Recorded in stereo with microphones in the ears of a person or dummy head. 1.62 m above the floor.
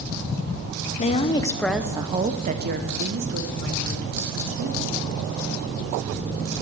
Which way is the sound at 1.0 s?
40° left (ahead or behind).